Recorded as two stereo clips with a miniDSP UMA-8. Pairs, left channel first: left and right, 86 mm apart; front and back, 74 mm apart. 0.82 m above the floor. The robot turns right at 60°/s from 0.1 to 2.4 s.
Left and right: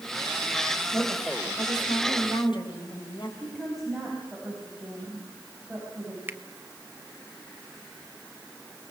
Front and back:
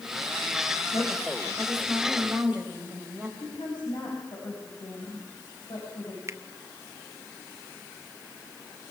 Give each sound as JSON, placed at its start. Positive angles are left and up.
{"t": 0.9, "sound": "a woman speaking", "azimuth_deg": 20, "distance_m": 4.5}
{"t": 3.4, "sound": "a woman speaking", "azimuth_deg": -5, "distance_m": 6.0}
{"t": 6.3, "sound": "a finger snap", "azimuth_deg": -150, "distance_m": 1.0}